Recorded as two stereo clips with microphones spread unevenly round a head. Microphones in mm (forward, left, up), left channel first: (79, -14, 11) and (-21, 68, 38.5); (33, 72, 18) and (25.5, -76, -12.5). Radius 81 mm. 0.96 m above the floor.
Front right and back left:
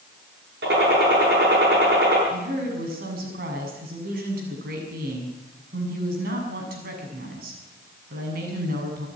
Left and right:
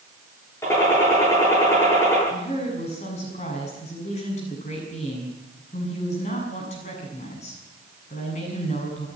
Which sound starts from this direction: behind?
A gunshot, at 0.6 s.